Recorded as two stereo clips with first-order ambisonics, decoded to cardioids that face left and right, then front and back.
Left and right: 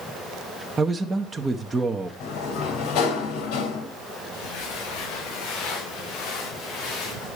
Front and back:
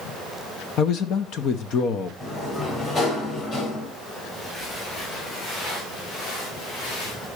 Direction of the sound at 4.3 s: 70° left.